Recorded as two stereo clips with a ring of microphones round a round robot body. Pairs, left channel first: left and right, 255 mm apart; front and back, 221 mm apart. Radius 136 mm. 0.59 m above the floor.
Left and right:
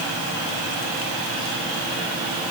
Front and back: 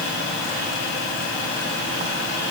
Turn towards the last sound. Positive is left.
No sound to turn to.